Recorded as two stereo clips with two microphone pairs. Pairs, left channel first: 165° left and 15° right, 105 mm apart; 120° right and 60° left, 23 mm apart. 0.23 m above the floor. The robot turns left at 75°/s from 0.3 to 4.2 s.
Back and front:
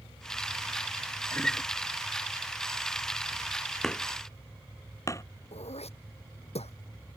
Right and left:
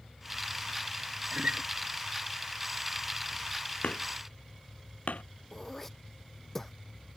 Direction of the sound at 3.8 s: 110° right.